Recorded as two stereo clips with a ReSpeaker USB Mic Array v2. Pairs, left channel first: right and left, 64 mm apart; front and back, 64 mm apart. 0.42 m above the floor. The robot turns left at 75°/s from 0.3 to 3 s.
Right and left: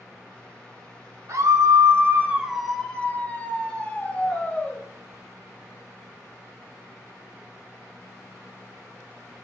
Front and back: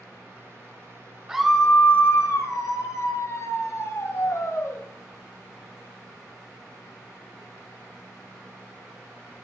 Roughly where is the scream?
Left.